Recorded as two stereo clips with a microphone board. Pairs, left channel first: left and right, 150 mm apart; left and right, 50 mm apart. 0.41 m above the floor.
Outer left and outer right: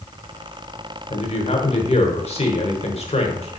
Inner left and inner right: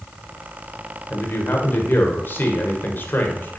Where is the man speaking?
45° left (ahead or behind), 1.3 m.